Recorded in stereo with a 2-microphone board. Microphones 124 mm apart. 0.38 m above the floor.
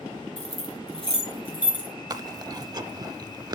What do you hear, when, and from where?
0.4 s keys jangling: 50° left (ahead or behind), 3 m; by 1.9 s 40° left (ahead or behind), 4 m
2.1 s chewing: 35° right (ahead or behind), 0.6 m